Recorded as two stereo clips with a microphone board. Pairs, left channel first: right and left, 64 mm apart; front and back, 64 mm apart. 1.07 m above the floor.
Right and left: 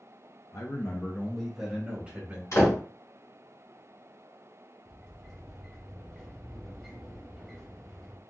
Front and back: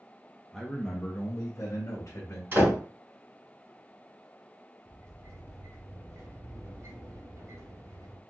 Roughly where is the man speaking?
Right.